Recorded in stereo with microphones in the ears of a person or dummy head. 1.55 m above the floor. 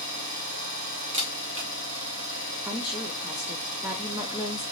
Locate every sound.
0.0 s an engine running: 50° right (ahead or behind), 1.3 m
1.1 s a camera shutter: 40° right (ahead or behind), 1.1 m
2.6 s a woman speaking: 15° right (ahead or behind), 0.7 m